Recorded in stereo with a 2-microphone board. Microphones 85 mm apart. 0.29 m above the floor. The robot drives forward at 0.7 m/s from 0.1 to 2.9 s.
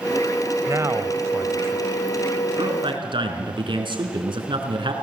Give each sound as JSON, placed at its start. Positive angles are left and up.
{"t": 0.7, "sound": "a man speaking", "side_deg": -35, "distance_m": 1.2}
{"t": 2.6, "sound": "a man speaking", "side_deg": -65, "distance_m": 3.5}